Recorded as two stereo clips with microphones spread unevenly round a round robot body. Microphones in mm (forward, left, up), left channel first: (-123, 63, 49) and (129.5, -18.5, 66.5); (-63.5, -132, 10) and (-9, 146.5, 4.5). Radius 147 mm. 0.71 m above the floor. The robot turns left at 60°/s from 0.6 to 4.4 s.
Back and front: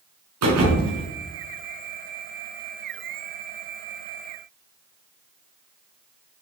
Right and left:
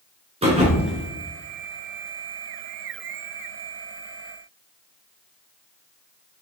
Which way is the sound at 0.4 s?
5° left.